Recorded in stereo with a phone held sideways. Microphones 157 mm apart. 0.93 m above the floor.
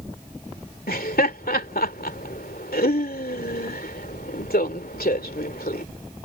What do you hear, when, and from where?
0.9 s laughter: 70° left (ahead or behind)